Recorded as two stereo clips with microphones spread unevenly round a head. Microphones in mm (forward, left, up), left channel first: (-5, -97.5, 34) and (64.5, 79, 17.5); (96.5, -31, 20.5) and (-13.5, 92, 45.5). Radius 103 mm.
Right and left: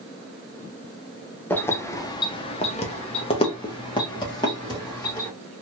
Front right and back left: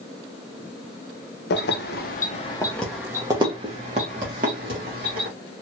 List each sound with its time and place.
1.5 s keys jangling: 35° right, 0.7 m; by 5.3 s 175° left, 1.6 m